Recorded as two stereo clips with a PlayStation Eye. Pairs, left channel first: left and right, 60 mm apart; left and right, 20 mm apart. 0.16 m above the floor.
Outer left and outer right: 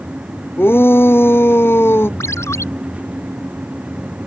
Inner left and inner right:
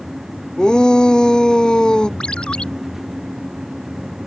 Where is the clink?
I don't hear a clink.